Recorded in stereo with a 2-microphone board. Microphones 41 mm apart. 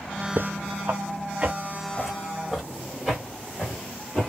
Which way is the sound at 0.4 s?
65° right (ahead or behind).